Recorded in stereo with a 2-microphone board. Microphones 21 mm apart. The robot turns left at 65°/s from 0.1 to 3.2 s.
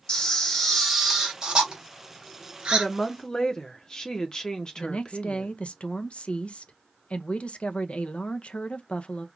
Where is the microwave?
I don't hear a microwave.